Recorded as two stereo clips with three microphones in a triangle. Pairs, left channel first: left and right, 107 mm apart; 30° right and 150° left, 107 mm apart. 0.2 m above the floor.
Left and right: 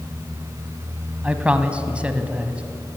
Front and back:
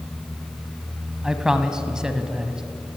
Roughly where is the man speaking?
Behind right.